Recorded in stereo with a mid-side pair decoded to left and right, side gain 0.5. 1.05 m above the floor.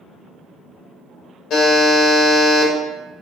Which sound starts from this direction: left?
A buzzer, at 1.5 s.